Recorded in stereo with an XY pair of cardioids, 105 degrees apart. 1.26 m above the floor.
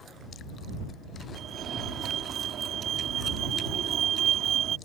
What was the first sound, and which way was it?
A fire alarm, 65° right.